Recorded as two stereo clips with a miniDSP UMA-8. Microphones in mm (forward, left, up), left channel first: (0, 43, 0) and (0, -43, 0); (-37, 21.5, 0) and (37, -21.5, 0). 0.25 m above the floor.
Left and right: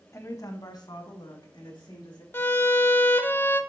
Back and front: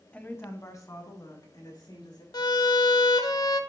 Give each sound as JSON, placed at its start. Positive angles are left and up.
{"t": 0.1, "sound": "a woman speaking", "azimuth_deg": 90, "distance_m": 1.0}
{"t": 2.3, "sound": "a violin", "azimuth_deg": 145, "distance_m": 0.5}